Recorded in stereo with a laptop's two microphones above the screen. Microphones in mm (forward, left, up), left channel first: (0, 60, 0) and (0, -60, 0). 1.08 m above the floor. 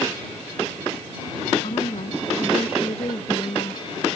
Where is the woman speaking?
55° left (ahead or behind).